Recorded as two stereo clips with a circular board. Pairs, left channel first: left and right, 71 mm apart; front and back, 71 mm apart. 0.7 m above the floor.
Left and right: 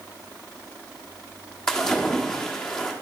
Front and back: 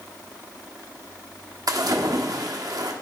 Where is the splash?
170° left, 1.3 m.